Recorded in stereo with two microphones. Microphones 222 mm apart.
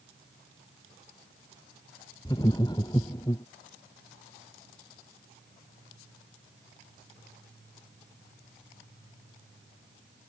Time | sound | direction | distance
2.2 | laughter | 20° left (ahead or behind) | ?